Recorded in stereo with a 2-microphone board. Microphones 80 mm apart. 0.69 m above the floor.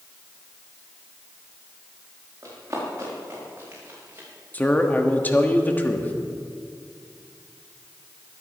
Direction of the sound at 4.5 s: 20° left (ahead or behind).